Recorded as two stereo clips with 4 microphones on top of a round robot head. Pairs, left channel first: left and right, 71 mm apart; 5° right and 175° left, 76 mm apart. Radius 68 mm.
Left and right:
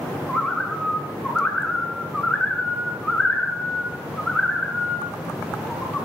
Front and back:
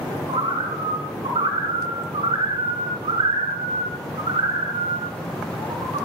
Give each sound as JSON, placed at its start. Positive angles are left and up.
{"t": 0.3, "sound": "a bird", "azimuth_deg": 170, "distance_m": 5.0}